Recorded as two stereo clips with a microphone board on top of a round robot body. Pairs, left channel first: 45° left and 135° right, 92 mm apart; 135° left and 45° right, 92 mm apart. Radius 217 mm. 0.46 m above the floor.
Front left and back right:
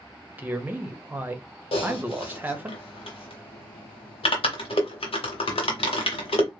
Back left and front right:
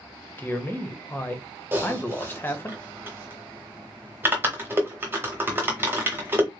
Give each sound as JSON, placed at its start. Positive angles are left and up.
{"t": 0.4, "sound": "a man speaking", "azimuth_deg": 175, "distance_m": 1.1}
{"t": 1.7, "sound": "typing on a keyboard", "azimuth_deg": 25, "distance_m": 0.6}